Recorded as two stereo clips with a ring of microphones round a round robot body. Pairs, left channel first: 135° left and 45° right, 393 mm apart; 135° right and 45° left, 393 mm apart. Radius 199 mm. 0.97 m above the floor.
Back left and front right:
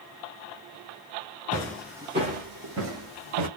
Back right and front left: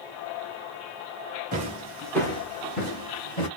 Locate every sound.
1.5 s footsteps: 70° left, 0.9 m; by 3.5 s 85° right, 1.5 m